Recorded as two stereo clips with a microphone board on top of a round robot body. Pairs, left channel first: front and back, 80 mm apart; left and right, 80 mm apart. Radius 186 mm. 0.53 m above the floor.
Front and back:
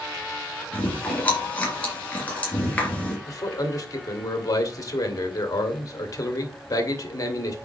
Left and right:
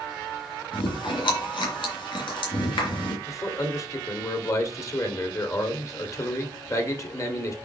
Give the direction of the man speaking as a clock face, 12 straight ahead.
11 o'clock.